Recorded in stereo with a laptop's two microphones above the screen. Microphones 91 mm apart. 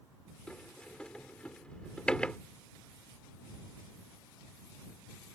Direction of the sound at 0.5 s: 10° left (ahead or behind).